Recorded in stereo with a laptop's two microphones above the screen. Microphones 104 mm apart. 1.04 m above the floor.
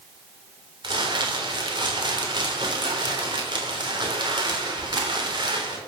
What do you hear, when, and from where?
0.8 s crumpling: 45° right (ahead or behind), 3 m